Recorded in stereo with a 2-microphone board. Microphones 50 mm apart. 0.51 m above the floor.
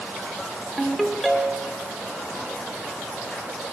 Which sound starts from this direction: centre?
A ringtone, at 0.8 s.